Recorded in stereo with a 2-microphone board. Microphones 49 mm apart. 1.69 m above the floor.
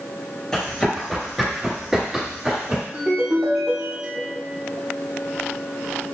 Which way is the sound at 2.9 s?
30° right (ahead or behind).